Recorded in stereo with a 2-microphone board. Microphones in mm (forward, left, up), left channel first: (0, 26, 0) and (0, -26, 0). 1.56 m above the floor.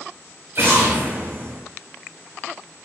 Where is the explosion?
50° right (ahead or behind), 1.4 m.